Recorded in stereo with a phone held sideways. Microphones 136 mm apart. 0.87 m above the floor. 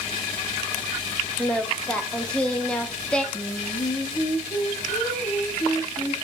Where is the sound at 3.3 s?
35° left (ahead or behind), 1.4 m.